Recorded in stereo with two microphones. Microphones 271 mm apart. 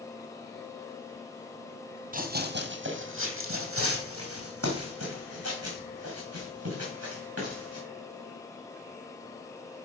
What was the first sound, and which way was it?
Running footsteps, 30° right (ahead or behind).